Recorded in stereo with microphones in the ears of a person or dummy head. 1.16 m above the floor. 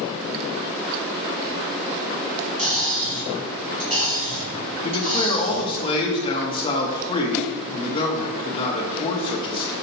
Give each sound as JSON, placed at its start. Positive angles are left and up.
{"t": 2.6, "sound": "cutlery clinking", "side_deg": -45, "distance_m": 3.5}
{"t": 4.8, "sound": "a man speaking", "side_deg": 30, "distance_m": 1.3}